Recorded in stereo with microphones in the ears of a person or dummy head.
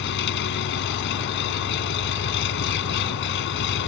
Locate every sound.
0.0 s an engine running: 65° left (ahead or behind)